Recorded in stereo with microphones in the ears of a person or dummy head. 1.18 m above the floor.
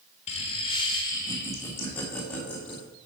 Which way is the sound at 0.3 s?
35° left (ahead or behind).